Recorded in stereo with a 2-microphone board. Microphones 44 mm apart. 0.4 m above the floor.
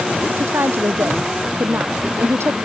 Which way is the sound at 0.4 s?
65° right (ahead or behind).